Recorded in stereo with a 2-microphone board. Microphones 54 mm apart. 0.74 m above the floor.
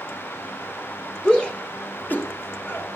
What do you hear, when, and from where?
1.2 s a shout: 15° left (ahead or behind), 2.5 m; by 3.0 s 50° left (ahead or behind), 3.5 m